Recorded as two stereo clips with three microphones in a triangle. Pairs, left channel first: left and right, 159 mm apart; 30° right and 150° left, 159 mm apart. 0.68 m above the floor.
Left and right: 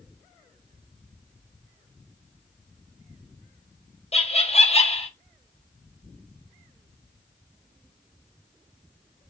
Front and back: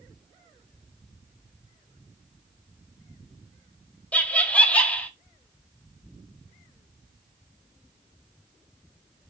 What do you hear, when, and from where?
4.1 s laughter: 50° left, 1.0 m